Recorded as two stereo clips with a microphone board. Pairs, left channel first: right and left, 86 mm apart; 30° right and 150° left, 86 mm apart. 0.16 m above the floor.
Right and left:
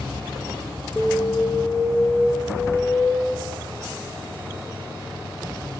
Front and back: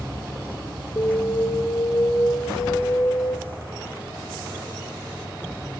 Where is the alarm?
15° right, 2.5 m.